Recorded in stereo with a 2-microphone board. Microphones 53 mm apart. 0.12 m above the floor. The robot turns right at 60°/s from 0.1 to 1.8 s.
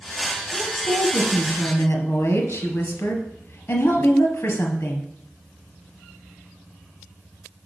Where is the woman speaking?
5° right, 1.7 m; by 5.1 s 75° left, 1.7 m.